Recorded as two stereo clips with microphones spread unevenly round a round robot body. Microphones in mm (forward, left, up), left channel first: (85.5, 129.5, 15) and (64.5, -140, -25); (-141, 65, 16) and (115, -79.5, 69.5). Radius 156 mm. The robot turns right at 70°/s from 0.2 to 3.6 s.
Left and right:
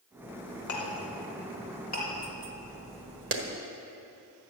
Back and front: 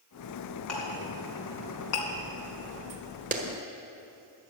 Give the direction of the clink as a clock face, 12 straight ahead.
10 o'clock.